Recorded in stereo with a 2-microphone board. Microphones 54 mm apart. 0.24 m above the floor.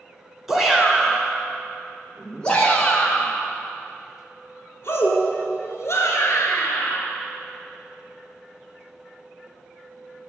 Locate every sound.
0.5 s a shout: 5° right (ahead or behind), 3 m; by 7.0 s 60° left (ahead or behind), 4 m